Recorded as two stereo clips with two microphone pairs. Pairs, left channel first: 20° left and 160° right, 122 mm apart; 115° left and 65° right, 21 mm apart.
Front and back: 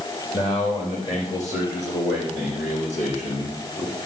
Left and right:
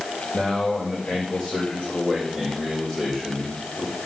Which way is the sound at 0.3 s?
55° left.